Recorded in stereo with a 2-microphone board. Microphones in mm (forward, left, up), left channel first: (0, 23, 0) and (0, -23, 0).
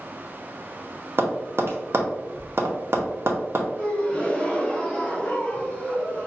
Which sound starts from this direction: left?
A gasp, at 3.8 s.